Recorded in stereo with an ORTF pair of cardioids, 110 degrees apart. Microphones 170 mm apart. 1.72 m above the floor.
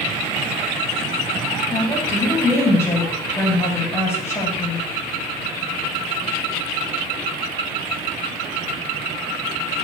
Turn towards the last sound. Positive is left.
turn(degrees=20)